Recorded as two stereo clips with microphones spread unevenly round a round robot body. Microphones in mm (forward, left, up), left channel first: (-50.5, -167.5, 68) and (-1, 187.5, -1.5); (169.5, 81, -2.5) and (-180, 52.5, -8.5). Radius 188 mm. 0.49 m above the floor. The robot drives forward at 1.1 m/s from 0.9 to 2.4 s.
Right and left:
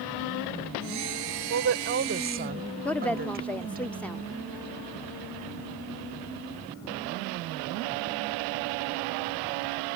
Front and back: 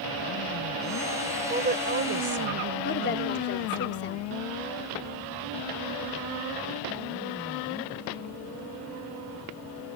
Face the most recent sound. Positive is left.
turn(degrees=5)